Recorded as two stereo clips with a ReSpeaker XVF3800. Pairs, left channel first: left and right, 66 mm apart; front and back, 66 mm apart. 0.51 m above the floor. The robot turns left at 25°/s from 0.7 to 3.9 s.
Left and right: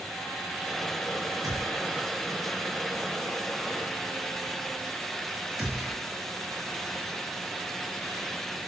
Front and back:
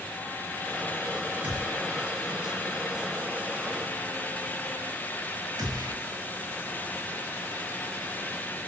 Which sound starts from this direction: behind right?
A gunshot, at 1.4 s.